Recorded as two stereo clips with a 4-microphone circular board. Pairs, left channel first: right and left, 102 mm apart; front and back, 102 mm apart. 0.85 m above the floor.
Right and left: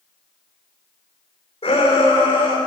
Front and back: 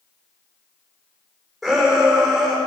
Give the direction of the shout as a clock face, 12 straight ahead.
3 o'clock.